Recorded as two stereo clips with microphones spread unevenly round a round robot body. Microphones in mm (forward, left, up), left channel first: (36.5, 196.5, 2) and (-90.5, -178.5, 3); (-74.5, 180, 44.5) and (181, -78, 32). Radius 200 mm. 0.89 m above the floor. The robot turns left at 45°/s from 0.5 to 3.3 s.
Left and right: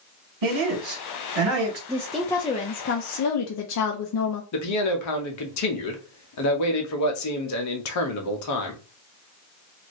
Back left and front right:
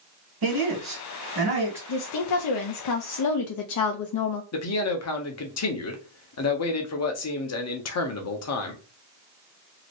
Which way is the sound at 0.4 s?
70° right.